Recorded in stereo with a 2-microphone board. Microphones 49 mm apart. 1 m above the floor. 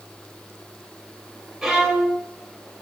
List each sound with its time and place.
1.6 s a violin: 5° right (ahead or behind), 0.7 m